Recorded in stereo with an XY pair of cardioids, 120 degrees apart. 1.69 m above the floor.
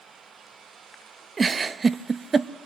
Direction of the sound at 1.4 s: 30° right.